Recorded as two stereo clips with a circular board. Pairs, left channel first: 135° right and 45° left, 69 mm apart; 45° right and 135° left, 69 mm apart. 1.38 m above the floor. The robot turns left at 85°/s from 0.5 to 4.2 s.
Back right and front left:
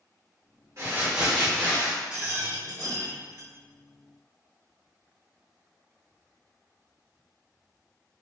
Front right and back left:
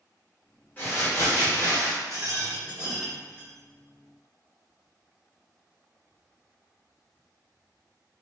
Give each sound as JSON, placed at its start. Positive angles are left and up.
{"t": 0.8, "sound": "crumpling", "azimuth_deg": 10, "distance_m": 1.6}
{"t": 2.1, "sound": "a rattle", "azimuth_deg": 125, "distance_m": 1.9}